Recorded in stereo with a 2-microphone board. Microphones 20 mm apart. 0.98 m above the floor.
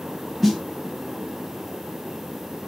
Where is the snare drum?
5° left (ahead or behind), 0.7 m.